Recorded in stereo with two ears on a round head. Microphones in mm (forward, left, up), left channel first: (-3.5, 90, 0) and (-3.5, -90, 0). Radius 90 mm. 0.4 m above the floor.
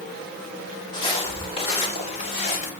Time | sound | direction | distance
0.9 | footsteps | 25° left (ahead or behind) | 5 m